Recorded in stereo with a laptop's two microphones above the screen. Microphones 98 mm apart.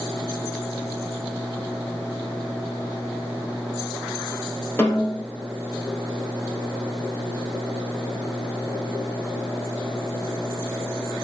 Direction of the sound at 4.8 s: 20° left (ahead or behind).